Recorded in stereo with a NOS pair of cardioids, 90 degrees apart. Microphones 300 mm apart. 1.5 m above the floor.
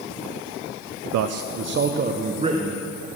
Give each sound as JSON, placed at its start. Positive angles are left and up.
{"t": 1.1, "sound": "a man speaking", "azimuth_deg": -70, "distance_m": 0.6}